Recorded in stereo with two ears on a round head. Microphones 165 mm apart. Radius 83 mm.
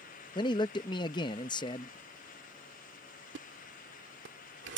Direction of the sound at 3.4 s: 65° right (ahead or behind).